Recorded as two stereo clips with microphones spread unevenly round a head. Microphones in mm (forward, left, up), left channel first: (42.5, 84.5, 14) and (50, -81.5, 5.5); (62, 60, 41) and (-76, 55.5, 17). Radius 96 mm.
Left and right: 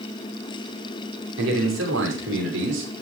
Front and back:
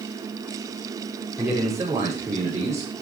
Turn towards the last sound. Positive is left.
turn(degrees=-105)